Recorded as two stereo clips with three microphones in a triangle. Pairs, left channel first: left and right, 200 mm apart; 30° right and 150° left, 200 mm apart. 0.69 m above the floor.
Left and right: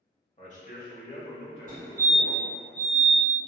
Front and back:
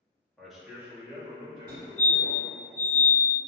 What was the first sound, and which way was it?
A man speaking, 55° left.